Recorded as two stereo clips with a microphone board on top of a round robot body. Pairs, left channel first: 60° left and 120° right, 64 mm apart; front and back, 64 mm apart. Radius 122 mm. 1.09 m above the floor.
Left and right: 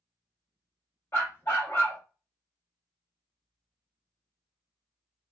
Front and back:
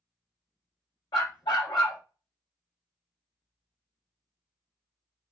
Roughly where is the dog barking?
Ahead.